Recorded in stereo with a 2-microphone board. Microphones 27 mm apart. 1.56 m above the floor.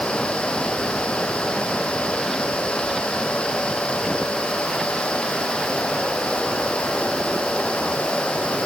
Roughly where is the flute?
No flute in this recording.